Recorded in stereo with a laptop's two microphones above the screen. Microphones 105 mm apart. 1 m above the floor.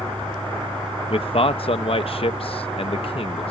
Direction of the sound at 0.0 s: 55° right (ahead or behind).